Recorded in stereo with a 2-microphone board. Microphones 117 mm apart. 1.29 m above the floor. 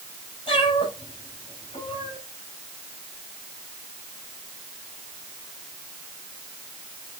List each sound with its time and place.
0.5 s a cat meowing: 45° left (ahead or behind), 5.5 m